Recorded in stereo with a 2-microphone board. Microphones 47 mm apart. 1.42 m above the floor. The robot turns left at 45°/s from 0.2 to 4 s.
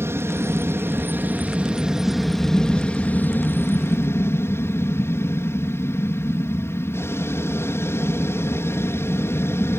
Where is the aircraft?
60° right (ahead or behind); by 9.8 s 60° left (ahead or behind).